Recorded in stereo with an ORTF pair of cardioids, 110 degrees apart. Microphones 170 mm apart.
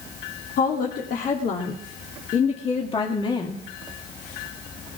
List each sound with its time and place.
0.6 s a woman speaking: 60° left, 2.5 m; by 3.6 s 25° left, 1.9 m